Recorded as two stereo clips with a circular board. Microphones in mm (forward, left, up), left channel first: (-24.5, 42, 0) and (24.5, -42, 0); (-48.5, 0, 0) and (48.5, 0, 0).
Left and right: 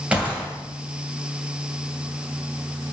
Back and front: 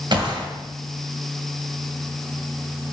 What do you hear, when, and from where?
0.1 s a gunshot: 15° left, 2 m